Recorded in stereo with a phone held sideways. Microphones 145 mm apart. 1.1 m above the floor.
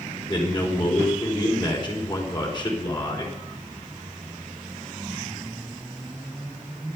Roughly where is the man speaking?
Left.